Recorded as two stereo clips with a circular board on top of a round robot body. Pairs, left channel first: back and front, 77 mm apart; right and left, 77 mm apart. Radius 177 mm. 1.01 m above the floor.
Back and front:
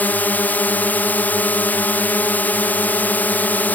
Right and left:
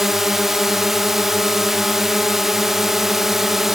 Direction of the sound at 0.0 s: 170° left.